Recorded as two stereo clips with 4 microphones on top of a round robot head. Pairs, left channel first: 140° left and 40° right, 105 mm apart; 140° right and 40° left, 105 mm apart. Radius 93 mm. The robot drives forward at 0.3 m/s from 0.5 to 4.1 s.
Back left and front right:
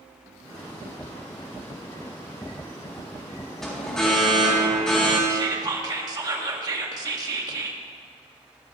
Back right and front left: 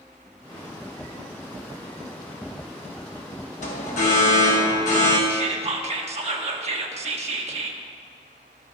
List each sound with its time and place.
3.6 s an alarm: 135° right, 2.0 m
5.3 s whispering: 15° left, 1.5 m